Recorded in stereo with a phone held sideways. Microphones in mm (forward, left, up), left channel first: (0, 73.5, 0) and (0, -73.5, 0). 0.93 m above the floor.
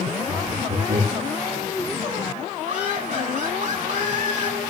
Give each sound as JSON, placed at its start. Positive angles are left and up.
{"t": 0.3, "sound": "laughter", "side_deg": -85, "distance_m": 6.5}
{"t": 2.7, "sound": "laughter", "side_deg": -65, "distance_m": 8.5}